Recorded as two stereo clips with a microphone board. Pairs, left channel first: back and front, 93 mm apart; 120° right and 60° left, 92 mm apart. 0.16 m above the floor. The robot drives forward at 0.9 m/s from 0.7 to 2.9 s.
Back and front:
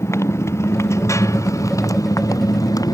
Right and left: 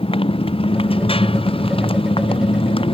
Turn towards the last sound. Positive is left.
turn(degrees=-130)